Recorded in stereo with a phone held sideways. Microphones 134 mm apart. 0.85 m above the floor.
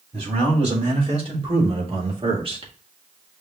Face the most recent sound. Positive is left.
turn(degrees=-40)  # may be behind; listen again after turning